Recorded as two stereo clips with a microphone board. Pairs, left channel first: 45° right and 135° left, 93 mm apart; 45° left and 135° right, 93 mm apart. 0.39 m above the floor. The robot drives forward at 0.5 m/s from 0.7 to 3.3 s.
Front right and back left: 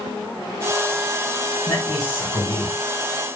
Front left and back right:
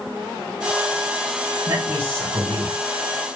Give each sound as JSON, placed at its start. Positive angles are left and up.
{"t": 1.7, "sound": "a man speaking", "azimuth_deg": -85, "distance_m": 3.5}